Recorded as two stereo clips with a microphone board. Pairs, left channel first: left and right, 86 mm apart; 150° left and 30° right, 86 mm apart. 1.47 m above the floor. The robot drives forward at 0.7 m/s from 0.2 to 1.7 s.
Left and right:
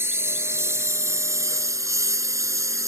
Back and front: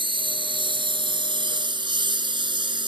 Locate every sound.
0.0 s a lawn mower: 30° right; by 2.9 s 40° right